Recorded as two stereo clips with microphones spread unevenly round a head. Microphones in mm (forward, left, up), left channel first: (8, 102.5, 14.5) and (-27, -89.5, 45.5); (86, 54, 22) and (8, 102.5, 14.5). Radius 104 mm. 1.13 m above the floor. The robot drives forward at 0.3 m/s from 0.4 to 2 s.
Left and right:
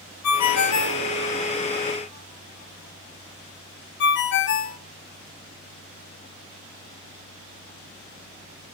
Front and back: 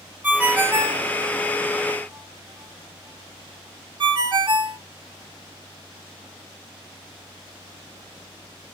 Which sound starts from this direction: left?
A ringtone, at 0.2 s.